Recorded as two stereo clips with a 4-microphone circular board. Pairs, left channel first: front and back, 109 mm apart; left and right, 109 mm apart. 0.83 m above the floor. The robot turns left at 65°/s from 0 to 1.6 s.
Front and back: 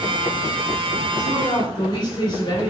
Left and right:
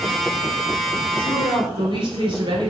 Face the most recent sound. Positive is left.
turn(degrees=-50)